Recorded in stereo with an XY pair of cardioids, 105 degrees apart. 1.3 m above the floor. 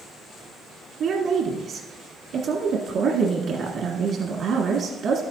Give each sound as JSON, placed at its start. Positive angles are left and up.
{"t": 1.0, "sound": "a woman speaking", "azimuth_deg": -65, "distance_m": 1.5}